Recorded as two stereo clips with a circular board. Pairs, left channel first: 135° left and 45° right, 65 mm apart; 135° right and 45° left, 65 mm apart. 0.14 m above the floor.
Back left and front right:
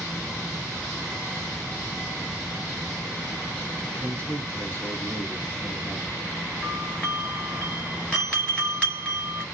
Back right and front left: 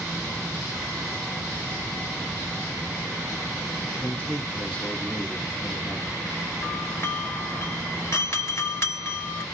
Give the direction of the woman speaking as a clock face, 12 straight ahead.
6 o'clock.